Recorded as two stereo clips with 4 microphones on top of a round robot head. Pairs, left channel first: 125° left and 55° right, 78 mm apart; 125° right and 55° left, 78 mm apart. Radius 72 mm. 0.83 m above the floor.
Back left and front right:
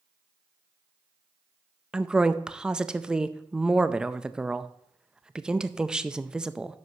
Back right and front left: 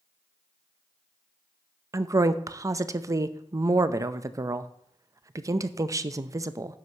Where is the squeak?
I don't hear a squeak.